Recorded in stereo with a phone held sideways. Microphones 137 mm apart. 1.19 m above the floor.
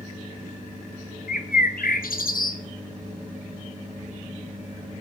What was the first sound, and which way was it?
A bird, 80° left.